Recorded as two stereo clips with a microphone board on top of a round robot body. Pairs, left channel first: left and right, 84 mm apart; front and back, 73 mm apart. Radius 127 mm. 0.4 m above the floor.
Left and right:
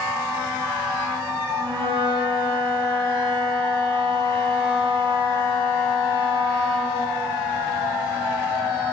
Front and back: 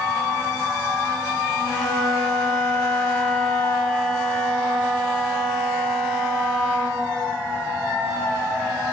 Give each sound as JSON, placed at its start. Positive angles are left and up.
{"t": 1.6, "sound": "a flute", "azimuth_deg": -80, "distance_m": 4.0}